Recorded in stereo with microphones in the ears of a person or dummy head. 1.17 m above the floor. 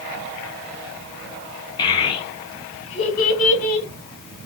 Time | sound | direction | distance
1.8 | a child speaking | 25° left (ahead or behind) | 2 m